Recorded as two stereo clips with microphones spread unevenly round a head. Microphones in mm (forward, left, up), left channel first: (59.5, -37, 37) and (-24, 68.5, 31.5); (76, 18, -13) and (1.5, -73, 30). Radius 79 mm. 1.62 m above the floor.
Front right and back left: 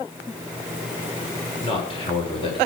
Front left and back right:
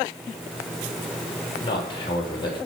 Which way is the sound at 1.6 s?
Straight ahead.